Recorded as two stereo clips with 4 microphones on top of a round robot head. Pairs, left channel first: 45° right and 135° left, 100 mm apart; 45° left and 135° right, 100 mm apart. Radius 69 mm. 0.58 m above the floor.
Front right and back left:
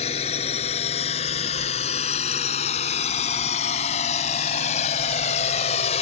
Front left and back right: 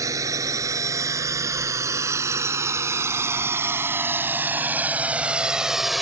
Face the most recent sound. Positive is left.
turn(degrees=-40)